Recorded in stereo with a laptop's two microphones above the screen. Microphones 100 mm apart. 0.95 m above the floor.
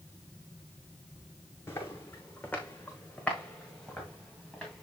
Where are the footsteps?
25° left (ahead or behind), 3 m; by 4.8 s 5° left (ahead or behind), 5.5 m.